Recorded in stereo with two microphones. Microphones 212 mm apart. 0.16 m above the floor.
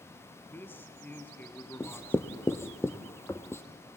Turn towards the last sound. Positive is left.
turn(degrees=10)  # may be behind; listen again after turning